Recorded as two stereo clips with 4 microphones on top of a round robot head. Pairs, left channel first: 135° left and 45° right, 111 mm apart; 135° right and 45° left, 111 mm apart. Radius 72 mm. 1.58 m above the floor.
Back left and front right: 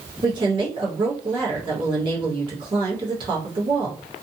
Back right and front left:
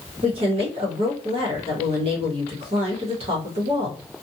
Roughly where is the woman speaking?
Ahead.